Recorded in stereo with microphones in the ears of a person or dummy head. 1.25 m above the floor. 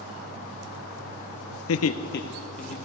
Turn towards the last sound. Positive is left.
turn(degrees=40)  # may be behind; listen again after turning